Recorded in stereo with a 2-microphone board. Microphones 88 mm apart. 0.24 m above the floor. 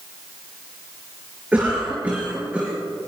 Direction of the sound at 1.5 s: 15° right (ahead or behind).